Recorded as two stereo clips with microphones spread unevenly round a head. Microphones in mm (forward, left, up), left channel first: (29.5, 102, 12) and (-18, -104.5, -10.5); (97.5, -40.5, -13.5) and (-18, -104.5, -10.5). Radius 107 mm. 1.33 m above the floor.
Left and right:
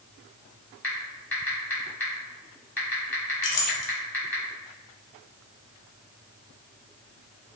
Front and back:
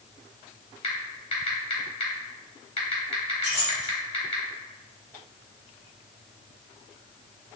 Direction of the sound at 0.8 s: 5° left.